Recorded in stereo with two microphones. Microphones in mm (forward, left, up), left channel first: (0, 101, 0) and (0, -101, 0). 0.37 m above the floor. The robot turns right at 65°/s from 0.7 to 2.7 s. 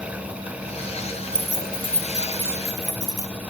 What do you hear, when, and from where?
1.3 s keys jangling: 20° left (ahead or behind), 0.5 m; by 3.3 s 15° right (ahead or behind), 0.5 m